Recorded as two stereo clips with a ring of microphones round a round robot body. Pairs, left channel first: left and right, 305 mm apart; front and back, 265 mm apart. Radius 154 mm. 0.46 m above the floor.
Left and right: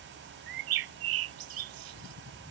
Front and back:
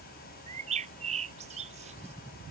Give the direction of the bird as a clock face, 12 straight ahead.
4 o'clock.